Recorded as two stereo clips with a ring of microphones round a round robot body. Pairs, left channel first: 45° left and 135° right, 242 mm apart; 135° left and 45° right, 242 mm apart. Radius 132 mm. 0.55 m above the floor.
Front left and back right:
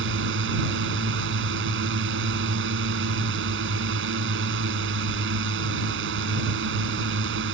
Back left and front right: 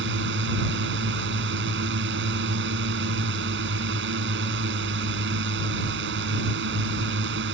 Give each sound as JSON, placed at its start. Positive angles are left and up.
{"t": 0.0, "sound": "a drone", "azimuth_deg": -90}